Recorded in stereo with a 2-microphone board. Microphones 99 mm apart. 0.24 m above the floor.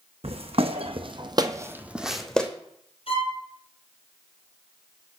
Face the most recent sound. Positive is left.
turn(degrees=70)  # may be behind; listen again after turning